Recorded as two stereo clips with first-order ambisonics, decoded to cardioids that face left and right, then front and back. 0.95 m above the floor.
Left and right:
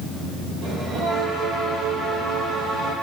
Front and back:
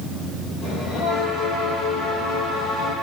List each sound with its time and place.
0.6 s a bell: 55° right, 5.5 m